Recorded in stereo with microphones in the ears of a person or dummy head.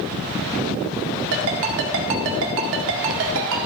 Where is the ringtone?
65° right (ahead or behind), 1.6 m.